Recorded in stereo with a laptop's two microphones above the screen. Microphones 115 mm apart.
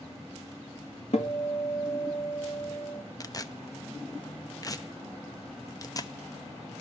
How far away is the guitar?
About 1.9 m.